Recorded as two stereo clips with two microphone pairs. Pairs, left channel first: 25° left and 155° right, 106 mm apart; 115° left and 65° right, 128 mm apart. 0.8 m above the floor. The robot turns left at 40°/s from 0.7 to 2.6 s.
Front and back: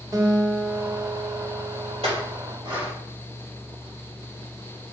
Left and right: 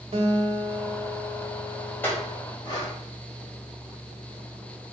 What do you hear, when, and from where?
0.1 s a guitar: 105° right, 1.4 m; by 2.4 s 170° right, 1.4 m
2.0 s a clink: 175° right, 3 m; by 2.9 s 165° left, 3 m